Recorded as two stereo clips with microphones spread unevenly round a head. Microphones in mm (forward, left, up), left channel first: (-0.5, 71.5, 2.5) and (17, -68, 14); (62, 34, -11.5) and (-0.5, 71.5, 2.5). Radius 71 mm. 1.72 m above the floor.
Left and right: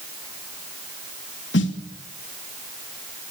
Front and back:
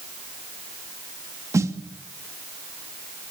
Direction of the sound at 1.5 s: 105° left.